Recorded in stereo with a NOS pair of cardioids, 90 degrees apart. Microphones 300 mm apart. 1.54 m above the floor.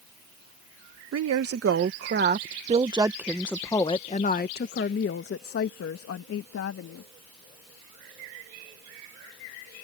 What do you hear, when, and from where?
1.1 s a woman speaking: 55° right; by 7.1 s 60° left